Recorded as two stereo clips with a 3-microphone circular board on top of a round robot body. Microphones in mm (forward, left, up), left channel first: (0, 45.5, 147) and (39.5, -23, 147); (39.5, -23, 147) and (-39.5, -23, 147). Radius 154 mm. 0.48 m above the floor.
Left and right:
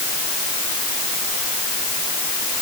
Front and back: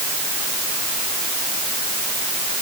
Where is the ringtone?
I don't hear a ringtone.